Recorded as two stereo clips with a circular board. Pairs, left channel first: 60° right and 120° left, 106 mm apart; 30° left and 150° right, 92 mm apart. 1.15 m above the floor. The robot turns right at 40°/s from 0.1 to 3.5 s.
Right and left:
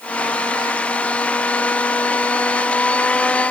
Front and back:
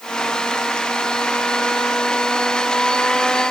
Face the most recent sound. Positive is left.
No sound to turn to.